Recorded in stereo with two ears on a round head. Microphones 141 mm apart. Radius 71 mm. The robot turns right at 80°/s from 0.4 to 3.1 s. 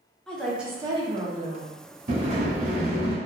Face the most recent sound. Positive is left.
turn(degrees=-40)